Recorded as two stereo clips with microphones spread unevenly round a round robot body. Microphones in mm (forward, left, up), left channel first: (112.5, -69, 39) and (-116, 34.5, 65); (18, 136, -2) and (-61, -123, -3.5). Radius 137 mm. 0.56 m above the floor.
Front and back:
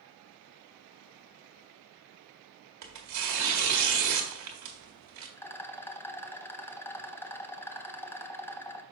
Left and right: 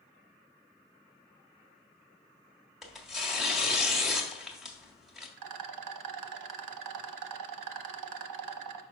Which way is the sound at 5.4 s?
110° right.